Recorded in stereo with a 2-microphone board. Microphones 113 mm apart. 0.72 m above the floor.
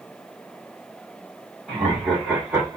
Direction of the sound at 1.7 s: Centre (ahead or behind).